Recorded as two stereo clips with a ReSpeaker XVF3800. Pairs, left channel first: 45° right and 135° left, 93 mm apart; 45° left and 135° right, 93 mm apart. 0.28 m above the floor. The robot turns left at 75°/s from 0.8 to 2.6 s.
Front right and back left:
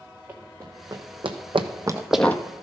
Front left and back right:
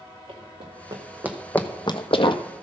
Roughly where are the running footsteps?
Behind right.